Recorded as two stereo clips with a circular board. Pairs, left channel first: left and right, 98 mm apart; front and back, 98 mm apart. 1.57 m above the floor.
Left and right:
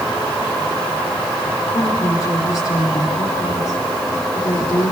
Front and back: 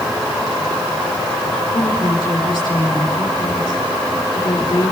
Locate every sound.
1.7 s a woman speaking: 50° left, 5 m